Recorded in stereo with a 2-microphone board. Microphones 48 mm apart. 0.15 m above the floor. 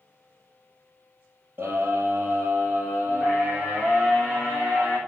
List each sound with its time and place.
1.6 s a scream: 50° right (ahead or behind), 3.5 m; by 5.0 s 40° right (ahead or behind), 7.5 m